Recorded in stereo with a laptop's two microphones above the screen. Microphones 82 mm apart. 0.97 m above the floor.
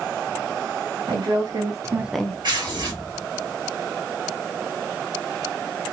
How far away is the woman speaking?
About 1.5 m.